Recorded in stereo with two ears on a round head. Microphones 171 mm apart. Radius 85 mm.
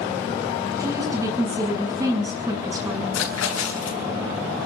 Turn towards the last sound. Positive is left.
turn(degrees=80)